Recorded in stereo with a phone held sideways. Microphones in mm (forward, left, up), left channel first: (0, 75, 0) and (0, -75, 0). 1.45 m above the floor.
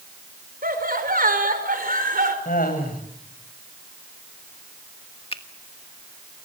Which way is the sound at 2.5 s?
80° left.